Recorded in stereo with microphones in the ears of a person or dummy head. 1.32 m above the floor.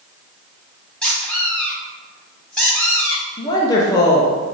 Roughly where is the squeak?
Centre.